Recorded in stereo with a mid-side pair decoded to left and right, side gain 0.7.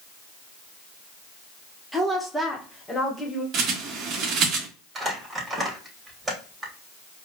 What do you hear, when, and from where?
1.9 s a woman speaking: 5° right, 0.9 m; by 3.4 s 25° left, 1.4 m
3.5 s a bird: 50° right, 0.9 m
5.0 s crumpling: 20° right, 1.7 m